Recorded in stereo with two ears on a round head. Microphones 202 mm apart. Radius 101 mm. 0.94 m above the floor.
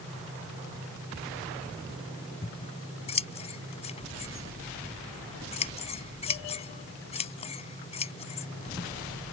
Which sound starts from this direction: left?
Scissors, at 2.4 s.